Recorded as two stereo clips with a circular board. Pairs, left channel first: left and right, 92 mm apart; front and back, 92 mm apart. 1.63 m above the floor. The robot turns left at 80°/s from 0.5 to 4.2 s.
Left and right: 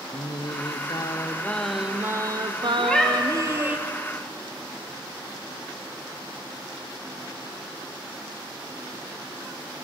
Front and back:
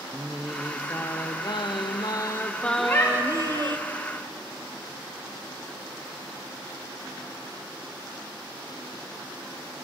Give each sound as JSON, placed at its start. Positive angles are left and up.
{"t": 0.1, "sound": "singing", "azimuth_deg": 100, "distance_m": 0.6}
{"t": 2.8, "sound": "a cat meowing", "azimuth_deg": 35, "distance_m": 1.1}